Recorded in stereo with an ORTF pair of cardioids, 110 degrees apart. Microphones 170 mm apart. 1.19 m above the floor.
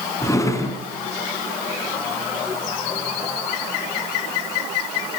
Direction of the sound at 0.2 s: 20° left.